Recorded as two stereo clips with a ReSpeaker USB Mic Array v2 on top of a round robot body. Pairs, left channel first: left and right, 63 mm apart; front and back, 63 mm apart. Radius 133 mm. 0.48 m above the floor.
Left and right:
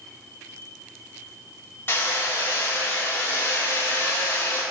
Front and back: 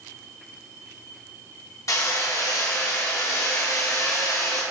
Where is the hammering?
35° left, 1.7 m.